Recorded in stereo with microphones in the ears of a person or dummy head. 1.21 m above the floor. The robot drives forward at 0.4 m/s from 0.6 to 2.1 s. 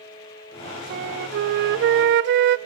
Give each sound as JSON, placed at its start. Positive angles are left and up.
{"t": 0.9, "sound": "a flute", "side_deg": -50, "distance_m": 0.9}